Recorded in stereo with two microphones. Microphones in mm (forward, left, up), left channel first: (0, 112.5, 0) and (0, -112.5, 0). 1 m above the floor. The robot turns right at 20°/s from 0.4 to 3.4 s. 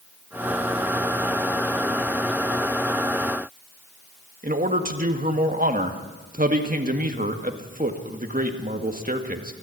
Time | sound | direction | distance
4.4 | a man speaking | 40° right (ahead or behind) | 1.8 m